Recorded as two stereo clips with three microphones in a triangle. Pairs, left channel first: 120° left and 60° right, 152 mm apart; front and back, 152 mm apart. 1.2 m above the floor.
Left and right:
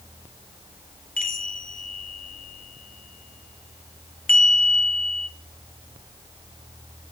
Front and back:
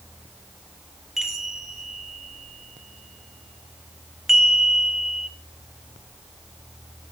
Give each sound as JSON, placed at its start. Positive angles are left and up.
{"t": 1.2, "sound": "a chime", "azimuth_deg": 90, "distance_m": 0.8}